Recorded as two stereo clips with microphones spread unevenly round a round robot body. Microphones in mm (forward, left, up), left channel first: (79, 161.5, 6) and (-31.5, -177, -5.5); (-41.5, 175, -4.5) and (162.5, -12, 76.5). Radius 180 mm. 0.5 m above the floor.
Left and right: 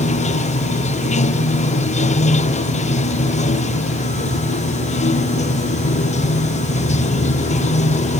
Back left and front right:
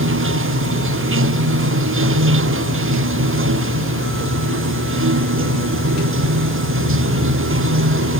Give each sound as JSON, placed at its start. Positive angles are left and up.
{"t": 0.0, "sound": "running water", "azimuth_deg": 0}